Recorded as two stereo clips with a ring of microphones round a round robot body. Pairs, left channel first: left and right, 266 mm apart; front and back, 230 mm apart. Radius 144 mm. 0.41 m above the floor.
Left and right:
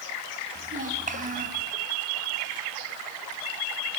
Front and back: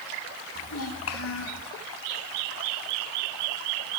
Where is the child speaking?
30° right, 3 m.